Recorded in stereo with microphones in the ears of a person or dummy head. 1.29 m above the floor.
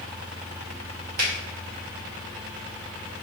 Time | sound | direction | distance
1.2 | a finger snap | 60° right (ahead or behind) | 1.5 m